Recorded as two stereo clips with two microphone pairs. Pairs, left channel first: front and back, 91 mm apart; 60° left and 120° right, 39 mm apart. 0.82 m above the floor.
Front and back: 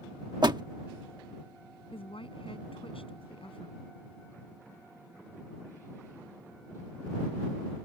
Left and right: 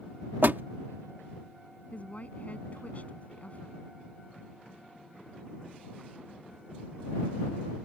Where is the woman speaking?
10° left.